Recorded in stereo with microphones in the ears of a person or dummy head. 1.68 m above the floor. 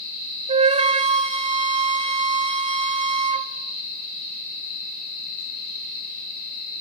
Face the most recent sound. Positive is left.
turn(degrees=-35)  # may be behind; listen again after turning